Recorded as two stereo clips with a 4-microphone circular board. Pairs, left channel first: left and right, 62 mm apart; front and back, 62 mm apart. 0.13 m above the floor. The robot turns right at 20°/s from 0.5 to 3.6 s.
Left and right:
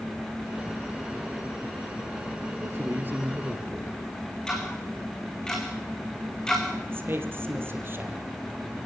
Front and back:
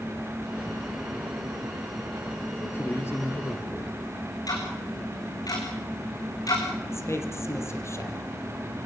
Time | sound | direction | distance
2.6 | a man speaking | 45° right | 2.5 m
4.5 | ticking | 15° left | 5 m
6.9 | a man speaking | 35° right | 3.5 m